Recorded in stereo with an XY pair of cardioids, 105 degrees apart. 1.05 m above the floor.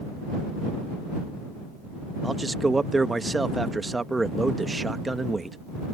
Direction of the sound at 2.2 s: 20° right.